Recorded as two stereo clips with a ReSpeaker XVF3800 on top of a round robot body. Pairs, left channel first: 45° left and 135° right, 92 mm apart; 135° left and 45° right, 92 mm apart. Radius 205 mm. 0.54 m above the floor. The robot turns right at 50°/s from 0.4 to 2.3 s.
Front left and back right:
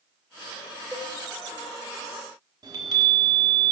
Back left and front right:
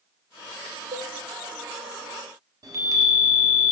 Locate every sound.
0.9 s a cowbell: 45° right, 0.7 m; by 1.1 s 35° right, 0.7 m
2.6 s a chime: 95° right, 1.4 m